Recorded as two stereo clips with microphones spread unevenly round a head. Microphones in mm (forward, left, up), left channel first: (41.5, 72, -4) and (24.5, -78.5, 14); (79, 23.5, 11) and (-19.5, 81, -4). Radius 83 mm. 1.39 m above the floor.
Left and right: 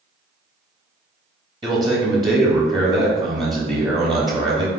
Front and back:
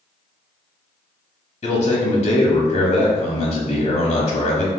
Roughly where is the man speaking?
Ahead right.